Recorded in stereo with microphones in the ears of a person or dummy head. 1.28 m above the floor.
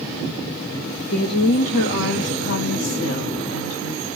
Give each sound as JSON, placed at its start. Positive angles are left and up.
{"t": 1.1, "sound": "a woman speaking", "side_deg": 40, "distance_m": 0.5}